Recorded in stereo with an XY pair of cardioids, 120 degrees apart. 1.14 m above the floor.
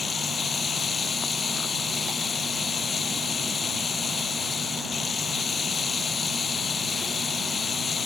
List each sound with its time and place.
0.0 s running water: 35° left